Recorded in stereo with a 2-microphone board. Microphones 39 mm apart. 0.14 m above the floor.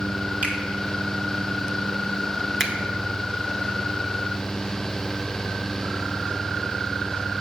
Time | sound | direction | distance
0.4 | a finger snap | 35° right (ahead or behind) | 1.9 m
2.6 | a finger snap | 5° right (ahead or behind) | 1.3 m